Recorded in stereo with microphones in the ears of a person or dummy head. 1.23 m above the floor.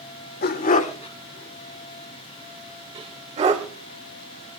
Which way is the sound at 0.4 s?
50° left (ahead or behind).